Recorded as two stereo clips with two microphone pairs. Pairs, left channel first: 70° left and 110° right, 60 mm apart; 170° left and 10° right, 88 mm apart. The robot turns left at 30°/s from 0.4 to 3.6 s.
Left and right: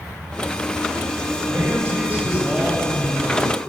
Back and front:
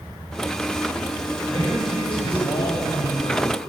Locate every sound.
1.5 s a man speaking: 155° right, 7.5 m; by 3.5 s 145° left, 7.5 m